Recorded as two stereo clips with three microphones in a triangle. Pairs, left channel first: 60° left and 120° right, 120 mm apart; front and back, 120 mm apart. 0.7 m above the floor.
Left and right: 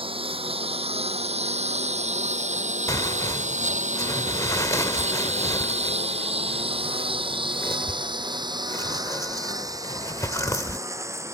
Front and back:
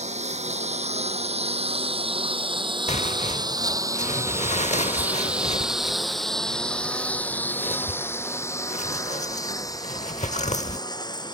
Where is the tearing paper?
5° right.